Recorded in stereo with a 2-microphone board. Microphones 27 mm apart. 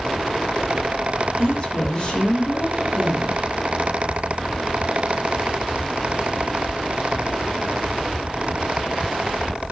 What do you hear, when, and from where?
1.4 s a woman speaking: 25° left (ahead or behind), 4 m